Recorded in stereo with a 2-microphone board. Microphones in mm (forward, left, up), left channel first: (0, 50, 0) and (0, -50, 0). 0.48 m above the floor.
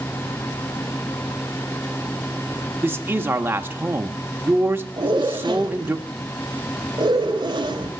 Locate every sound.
2.8 s a man speaking: 20° right (ahead or behind), 0.8 m
5.0 s a zipper: 45° right (ahead or behind), 1.7 m